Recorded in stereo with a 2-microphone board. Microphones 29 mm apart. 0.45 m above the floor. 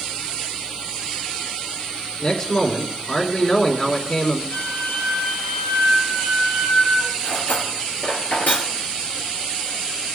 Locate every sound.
2.2 s a man speaking: 40° left (ahead or behind), 4 m
4.5 s a flute: 60° left (ahead or behind), 5 m
7.2 s cutlery clinking: 85° left, 4.5 m